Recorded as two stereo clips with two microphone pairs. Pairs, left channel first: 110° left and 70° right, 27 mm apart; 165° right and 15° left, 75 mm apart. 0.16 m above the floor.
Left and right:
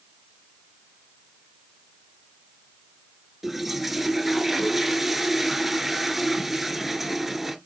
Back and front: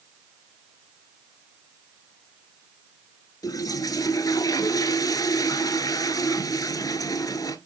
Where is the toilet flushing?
150° right, 1.0 m.